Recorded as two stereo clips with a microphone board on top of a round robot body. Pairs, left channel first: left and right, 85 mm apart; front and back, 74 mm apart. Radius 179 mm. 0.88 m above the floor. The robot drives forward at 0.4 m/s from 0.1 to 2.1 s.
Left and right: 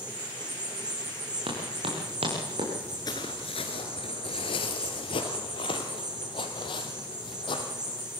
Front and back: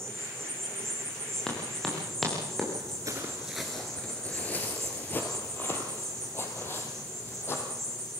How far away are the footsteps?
About 0.8 m.